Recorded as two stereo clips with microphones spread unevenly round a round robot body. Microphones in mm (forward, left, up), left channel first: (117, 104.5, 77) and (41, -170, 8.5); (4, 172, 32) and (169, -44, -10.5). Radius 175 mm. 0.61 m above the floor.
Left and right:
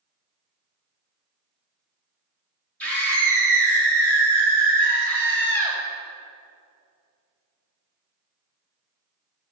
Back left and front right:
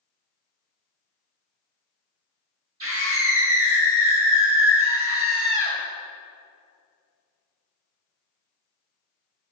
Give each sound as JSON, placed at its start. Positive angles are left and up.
{"t": 2.8, "sound": "a scream", "azimuth_deg": -15, "distance_m": 3.0}